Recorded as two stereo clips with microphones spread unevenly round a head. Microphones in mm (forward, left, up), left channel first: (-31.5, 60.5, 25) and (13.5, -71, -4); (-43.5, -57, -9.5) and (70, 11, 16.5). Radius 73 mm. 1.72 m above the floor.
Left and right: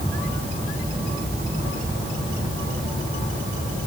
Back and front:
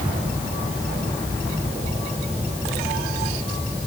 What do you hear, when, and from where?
Only background noise.